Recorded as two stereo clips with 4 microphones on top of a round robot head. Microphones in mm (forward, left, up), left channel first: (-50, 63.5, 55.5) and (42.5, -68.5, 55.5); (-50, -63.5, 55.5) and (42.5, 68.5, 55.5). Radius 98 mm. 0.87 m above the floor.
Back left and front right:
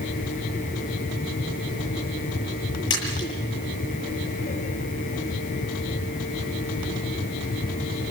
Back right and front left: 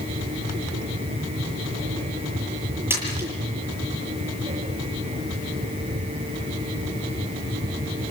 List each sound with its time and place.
2.9 s a splash: 130° left, 8.5 m